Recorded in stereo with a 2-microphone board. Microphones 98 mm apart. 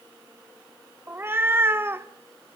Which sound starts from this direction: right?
A cat meowing, at 1.1 s.